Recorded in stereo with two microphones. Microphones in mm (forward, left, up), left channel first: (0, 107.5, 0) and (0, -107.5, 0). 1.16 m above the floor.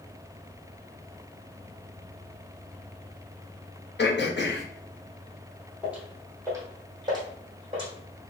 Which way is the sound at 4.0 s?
55° left (ahead or behind).